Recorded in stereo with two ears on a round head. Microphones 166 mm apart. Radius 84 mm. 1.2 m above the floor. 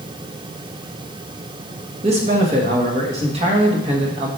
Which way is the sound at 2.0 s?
35° right (ahead or behind).